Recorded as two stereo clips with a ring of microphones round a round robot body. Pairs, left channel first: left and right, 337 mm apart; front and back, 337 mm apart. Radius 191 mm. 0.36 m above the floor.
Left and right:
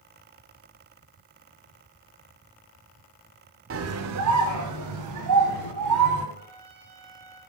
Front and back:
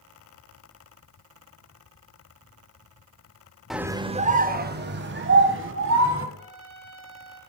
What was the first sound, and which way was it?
A scream, 90° right.